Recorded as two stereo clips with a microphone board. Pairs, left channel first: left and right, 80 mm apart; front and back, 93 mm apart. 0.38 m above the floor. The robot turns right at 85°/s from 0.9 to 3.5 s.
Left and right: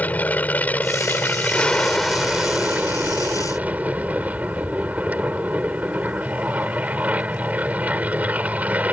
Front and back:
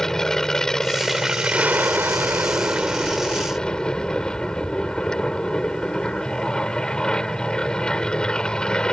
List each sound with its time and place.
0.0 s an aircraft: 75° left; by 8.9 s 65° right